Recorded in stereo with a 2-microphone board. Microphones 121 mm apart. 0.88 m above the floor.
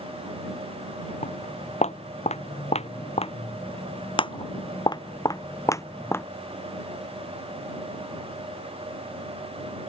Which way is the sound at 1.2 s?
75° left (ahead or behind).